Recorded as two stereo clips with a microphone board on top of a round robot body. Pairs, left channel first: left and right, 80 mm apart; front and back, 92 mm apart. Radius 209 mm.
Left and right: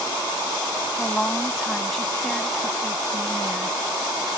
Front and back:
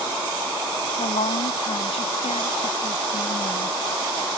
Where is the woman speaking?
5° left.